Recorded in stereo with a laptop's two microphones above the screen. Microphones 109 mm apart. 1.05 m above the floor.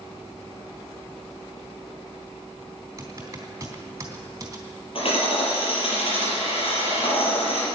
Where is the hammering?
55° left (ahead or behind), 5.5 m.